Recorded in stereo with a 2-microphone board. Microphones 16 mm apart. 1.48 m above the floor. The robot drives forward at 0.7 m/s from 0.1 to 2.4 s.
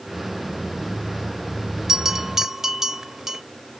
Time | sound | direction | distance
1.9 | a bell | 15° right (ahead or behind) | 1.0 m